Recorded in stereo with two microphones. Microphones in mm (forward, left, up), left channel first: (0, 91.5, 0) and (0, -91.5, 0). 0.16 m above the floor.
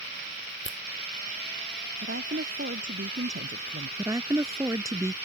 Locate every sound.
0.7 s a finger snap: 75° left (ahead or behind)
2.0 s a woman speaking: 80° right
4.0 s a woman speaking: 15° right (ahead or behind)